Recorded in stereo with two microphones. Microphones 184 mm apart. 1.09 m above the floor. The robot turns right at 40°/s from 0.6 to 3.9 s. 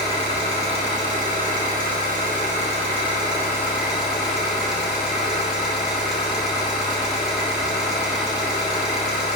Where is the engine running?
135° right, 0.8 m; by 9.4 s 5° right, 0.8 m.